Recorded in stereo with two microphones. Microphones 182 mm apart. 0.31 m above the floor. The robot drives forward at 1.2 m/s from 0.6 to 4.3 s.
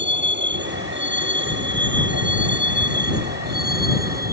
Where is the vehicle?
80° right; by 4.3 s 55° right (ahead or behind).